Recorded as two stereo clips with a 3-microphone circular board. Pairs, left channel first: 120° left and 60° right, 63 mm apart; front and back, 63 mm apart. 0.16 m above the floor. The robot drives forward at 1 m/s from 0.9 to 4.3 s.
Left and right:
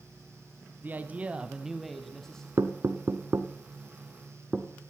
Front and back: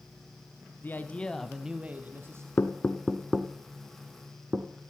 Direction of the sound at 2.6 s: 45° right.